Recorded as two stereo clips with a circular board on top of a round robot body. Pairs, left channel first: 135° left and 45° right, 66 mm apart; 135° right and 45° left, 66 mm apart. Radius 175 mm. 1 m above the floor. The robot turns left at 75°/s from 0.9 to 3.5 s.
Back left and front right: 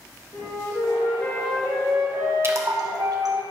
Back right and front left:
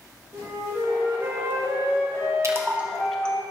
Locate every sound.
0.3 s a flute: 95° left, 2.5 m; by 3.4 s 95° right, 2.5 m
2.4 s a splash: 5° left, 1.5 m; by 3.4 s 65° right, 1.5 m